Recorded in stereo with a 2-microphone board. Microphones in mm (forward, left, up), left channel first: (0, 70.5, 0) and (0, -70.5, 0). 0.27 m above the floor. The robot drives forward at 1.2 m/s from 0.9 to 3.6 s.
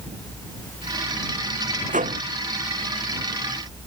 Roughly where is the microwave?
Right.